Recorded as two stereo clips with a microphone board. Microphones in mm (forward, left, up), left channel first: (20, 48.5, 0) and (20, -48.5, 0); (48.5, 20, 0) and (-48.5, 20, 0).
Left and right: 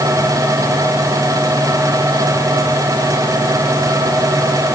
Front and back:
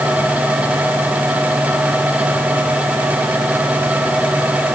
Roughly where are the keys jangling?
No keys jangling in this recording.